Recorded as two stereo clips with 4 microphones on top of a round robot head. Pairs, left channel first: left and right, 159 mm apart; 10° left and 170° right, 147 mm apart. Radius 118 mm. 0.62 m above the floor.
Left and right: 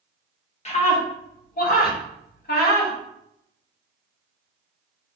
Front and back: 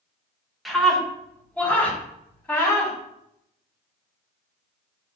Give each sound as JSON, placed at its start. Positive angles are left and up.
{"t": 0.7, "sound": "a scream", "azimuth_deg": 100, "distance_m": 1.0}